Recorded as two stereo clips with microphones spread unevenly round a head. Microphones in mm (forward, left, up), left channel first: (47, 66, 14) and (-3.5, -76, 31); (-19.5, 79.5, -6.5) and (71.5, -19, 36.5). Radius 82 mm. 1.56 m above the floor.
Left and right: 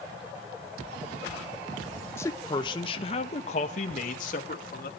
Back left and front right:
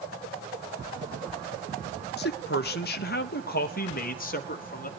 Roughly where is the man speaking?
Behind left.